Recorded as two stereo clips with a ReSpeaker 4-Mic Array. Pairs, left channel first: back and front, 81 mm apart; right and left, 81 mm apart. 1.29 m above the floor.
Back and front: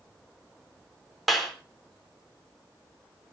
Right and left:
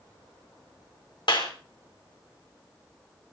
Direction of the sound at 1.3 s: 90° right.